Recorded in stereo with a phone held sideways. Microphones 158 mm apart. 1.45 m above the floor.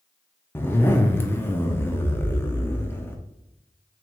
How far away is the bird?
No bird in this recording.